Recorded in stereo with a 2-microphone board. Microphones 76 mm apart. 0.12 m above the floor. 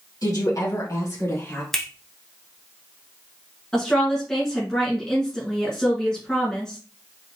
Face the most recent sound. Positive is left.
turn(degrees=10)  # may be behind; listen again after turning